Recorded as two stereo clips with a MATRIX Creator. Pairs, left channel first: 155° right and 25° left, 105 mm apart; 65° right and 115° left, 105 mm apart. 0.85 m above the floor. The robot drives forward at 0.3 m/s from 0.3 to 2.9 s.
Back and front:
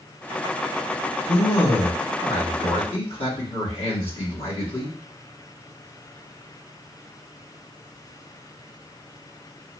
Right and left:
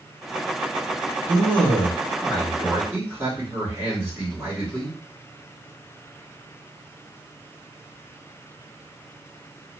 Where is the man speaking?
Straight behind, 1.5 m.